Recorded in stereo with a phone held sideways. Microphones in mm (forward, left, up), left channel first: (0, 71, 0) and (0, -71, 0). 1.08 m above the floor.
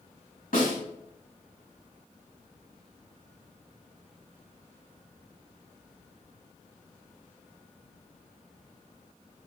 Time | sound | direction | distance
0.5 | a snare drum | 70° left (ahead or behind) | 4.5 m